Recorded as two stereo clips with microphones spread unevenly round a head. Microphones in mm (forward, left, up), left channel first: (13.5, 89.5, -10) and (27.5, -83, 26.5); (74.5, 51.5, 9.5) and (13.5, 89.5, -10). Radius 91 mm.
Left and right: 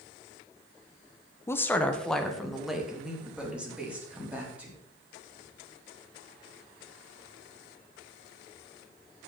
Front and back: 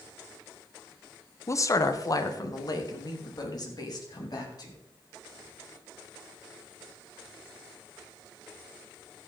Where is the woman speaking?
20° left, 1.1 m; by 4.8 s 5° right, 4.5 m.